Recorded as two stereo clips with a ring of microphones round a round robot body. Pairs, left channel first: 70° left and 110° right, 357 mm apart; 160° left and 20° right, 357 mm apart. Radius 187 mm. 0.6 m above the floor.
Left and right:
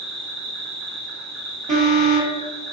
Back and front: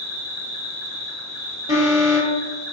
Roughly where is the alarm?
Right.